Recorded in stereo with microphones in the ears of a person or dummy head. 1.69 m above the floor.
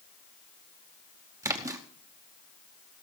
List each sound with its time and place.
1.4 s a splash: 15° right (ahead or behind), 0.9 m